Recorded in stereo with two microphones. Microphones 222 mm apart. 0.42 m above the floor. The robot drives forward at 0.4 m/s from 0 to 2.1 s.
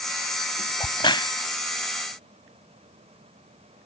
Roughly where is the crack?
Left.